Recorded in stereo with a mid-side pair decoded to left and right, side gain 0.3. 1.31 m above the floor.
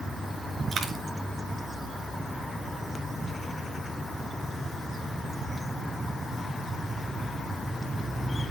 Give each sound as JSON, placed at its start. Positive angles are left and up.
{"t": 0.7, "sound": "a dropped coin", "azimuth_deg": -70, "distance_m": 3.5}